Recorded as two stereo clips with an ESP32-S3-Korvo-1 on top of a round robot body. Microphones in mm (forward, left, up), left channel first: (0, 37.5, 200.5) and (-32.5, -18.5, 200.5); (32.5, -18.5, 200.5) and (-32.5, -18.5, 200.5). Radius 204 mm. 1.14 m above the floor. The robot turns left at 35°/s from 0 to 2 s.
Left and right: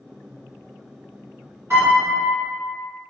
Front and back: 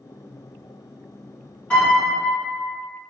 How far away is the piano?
About 1.5 m.